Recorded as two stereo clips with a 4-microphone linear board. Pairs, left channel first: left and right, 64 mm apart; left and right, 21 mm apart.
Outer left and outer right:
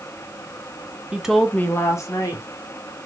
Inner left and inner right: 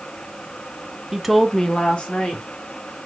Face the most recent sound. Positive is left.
turn(degrees=65)  # may be behind; listen again after turning